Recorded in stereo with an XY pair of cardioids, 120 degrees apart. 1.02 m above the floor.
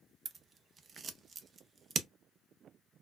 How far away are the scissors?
About 0.6 m.